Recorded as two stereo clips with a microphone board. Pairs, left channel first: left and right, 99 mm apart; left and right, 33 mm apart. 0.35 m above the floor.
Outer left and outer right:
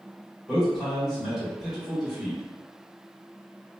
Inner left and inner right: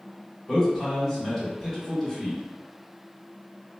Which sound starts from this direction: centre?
A man speaking, at 0.5 s.